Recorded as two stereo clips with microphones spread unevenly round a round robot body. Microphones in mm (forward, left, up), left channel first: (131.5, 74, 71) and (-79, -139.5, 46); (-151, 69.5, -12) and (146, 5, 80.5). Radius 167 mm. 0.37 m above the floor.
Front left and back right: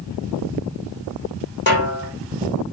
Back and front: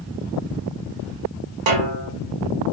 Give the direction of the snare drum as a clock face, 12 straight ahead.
12 o'clock.